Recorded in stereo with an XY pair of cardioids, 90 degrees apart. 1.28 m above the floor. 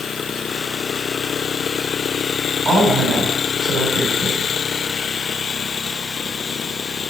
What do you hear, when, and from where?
2.6 s a woman speaking: 60° right, 3.5 m